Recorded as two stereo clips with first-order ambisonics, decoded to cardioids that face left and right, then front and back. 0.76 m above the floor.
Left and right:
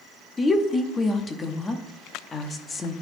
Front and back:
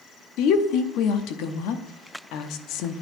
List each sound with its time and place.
0.4 s a woman speaking: 20° left, 0.8 m